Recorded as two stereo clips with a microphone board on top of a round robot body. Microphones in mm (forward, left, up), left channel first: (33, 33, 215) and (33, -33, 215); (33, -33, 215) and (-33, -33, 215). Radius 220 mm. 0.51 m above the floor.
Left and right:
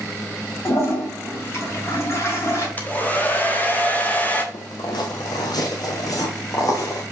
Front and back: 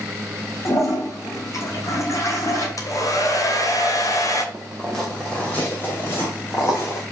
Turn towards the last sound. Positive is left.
turn(degrees=50)